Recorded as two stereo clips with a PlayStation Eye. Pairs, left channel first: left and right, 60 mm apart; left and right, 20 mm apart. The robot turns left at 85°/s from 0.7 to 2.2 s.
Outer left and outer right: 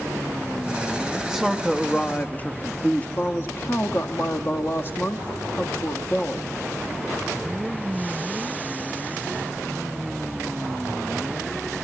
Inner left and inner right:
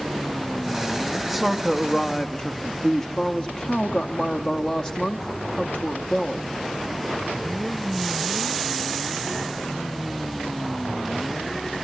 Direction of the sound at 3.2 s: 40° left (ahead or behind).